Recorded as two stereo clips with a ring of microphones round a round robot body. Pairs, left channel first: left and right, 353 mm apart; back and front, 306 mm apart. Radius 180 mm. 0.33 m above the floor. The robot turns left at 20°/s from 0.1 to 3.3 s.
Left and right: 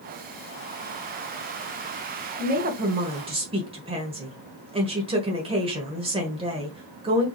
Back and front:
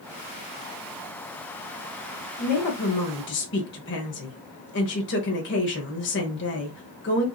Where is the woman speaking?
140° right, 1.3 m; by 7.2 s 155° right, 1.3 m.